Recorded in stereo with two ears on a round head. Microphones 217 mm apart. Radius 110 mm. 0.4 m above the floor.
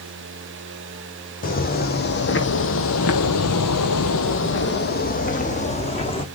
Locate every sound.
1.4 s footsteps: 40° left (ahead or behind), 1.6 m; by 6.2 s 20° left (ahead or behind), 1.8 m